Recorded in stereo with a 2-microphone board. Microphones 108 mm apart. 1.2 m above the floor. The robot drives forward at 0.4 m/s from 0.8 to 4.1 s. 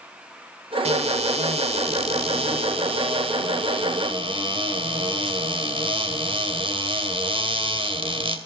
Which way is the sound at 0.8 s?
75° right (ahead or behind).